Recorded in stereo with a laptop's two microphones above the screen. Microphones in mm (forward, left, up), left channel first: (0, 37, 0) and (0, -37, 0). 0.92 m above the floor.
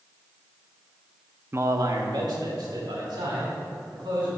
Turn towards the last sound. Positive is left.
turn(degrees=-85)